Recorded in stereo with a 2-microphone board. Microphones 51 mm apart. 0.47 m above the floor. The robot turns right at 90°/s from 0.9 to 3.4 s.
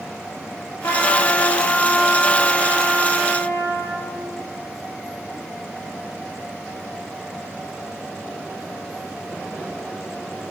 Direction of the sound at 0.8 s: 60° left.